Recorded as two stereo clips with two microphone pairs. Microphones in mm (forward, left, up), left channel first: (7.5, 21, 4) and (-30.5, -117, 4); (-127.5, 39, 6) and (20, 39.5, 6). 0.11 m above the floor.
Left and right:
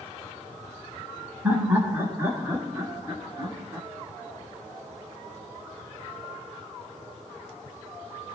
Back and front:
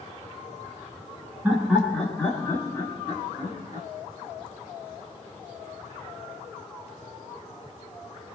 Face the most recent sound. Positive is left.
turn(degrees=-165)